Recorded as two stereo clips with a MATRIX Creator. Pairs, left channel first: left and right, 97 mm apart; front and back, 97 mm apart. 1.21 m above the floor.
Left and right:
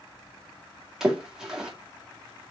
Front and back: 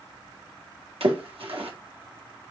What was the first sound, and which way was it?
A splash, 175° right.